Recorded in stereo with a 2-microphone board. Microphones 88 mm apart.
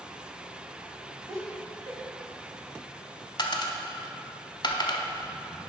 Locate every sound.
1.3 s laughter: 45° right (ahead or behind), 1.7 m
3.4 s a dropped coin: 55° left (ahead or behind), 0.8 m